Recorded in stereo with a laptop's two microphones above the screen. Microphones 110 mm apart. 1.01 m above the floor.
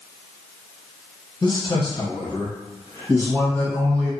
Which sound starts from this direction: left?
A man speaking, at 1.4 s.